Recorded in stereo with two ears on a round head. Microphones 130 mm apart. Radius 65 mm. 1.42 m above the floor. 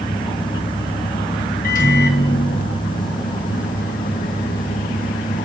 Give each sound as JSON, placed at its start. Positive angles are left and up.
{"t": 1.6, "sound": "a microwave", "side_deg": 60, "distance_m": 1.1}